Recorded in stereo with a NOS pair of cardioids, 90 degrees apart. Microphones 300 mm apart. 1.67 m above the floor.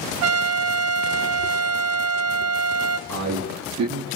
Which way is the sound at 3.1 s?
65° right.